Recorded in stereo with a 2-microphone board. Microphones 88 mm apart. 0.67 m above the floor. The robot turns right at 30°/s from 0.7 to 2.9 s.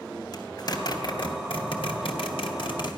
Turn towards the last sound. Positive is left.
turn(degrees=65)  # may be behind; listen again after turning